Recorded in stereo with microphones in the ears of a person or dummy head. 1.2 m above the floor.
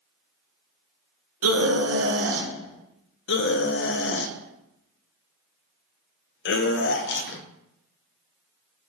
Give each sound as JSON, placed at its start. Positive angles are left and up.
{"t": 1.4, "sound": "a scream", "side_deg": -85, "distance_m": 1.1}
{"t": 3.3, "sound": "a scream", "side_deg": 55, "distance_m": 0.7}